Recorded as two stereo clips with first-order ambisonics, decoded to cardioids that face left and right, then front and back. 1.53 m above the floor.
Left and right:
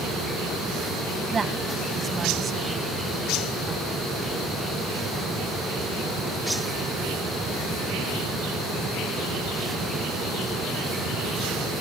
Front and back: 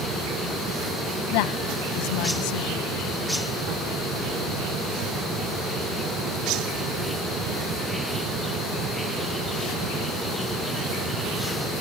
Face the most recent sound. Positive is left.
turn(degrees=-15)